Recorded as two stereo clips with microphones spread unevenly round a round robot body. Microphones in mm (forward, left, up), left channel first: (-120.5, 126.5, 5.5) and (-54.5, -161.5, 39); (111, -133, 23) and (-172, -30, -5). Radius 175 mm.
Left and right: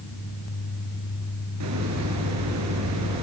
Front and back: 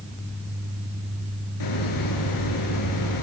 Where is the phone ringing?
I don't hear a phone ringing.